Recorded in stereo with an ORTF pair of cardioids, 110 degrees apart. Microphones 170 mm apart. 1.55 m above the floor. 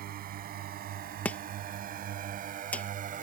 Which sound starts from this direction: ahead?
Chopping, at 1.2 s.